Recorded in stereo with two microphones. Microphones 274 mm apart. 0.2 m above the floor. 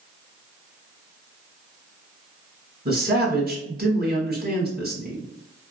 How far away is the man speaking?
About 1.3 m.